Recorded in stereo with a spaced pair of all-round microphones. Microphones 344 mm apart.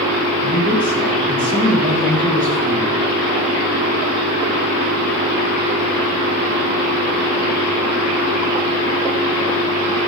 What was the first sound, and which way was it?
A man speaking, 25° right (ahead or behind).